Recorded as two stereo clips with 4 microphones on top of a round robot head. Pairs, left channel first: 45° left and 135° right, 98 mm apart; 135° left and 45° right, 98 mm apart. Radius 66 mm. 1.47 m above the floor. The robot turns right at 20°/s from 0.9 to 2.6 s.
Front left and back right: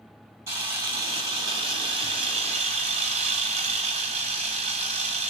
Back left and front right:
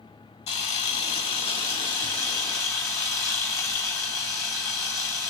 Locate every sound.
0.5 s a camera shutter: 160° left, 1.8 m; by 5.3 s 165° right, 1.8 m